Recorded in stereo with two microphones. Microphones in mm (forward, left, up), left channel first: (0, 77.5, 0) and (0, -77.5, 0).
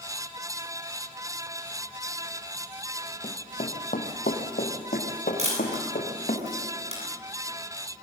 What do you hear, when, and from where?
3.2 s running footsteps: 50° left (ahead or behind), 2 m; by 6.4 s 65° left (ahead or behind), 5 m
5.4 s a camera shutter: 45° right (ahead or behind), 9.5 m